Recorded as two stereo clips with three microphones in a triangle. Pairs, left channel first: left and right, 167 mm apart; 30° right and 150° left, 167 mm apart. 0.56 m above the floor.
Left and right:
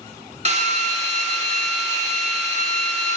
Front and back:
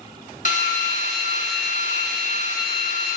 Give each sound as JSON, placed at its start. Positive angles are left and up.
{"t": 0.5, "sound": "a drill", "azimuth_deg": -55, "distance_m": 1.3}